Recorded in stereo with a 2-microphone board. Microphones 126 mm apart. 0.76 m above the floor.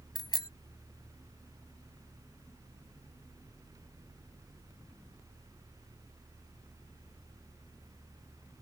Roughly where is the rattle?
No rattle in this recording.